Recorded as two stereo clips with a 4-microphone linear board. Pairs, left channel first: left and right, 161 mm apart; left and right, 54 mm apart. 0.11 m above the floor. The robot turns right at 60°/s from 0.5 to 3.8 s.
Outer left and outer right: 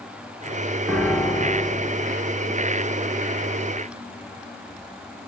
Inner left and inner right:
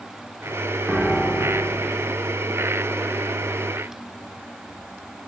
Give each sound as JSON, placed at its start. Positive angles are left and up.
{"t": 0.9, "sound": "a piano", "side_deg": 5, "distance_m": 1.0}